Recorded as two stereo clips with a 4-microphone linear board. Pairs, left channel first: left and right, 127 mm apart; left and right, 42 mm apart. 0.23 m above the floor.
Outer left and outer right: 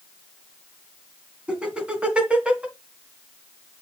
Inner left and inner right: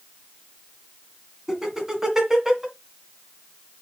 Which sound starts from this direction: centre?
Laughter, at 1.5 s.